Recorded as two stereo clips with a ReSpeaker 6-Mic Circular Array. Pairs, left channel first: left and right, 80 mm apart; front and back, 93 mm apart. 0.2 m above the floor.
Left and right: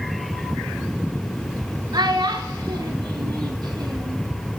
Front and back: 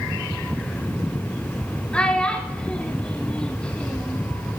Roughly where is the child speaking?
Right.